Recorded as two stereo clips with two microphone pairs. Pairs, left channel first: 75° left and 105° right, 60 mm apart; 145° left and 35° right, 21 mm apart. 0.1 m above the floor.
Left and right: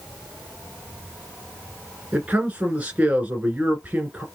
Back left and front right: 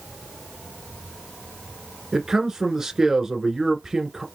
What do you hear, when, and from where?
2.1 s a man speaking: 65° right, 1.4 m